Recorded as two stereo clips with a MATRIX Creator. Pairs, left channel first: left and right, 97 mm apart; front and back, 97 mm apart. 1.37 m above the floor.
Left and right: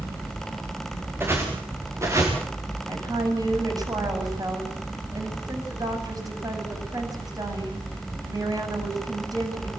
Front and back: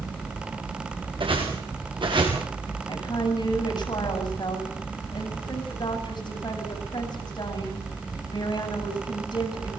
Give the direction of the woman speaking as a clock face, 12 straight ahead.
1 o'clock.